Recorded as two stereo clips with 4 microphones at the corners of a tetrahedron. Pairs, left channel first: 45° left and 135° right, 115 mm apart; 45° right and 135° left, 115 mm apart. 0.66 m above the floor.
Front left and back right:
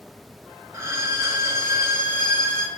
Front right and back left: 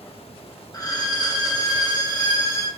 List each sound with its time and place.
0.7 s a violin: 85° right, 0.5 m